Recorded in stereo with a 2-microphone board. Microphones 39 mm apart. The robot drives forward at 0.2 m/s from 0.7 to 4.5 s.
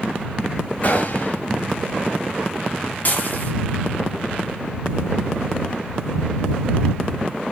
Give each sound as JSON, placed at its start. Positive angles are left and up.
{"t": 0.8, "sound": "a gunshot", "side_deg": 40, "distance_m": 6.0}
{"t": 3.0, "sound": "dishes clattering", "side_deg": 45, "distance_m": 3.5}